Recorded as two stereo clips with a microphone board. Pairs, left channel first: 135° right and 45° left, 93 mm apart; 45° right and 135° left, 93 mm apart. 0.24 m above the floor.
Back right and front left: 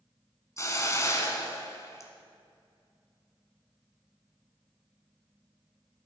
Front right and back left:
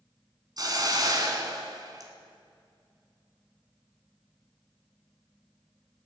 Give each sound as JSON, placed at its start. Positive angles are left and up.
{"t": 0.6, "sound": "a hiss", "azimuth_deg": 175, "distance_m": 1.3}